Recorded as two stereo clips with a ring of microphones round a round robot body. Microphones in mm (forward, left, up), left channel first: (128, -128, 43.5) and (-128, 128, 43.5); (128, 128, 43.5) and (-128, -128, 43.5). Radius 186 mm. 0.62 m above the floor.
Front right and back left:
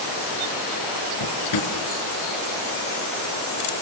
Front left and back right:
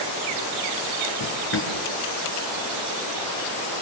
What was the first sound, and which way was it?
A drawer, 10° right.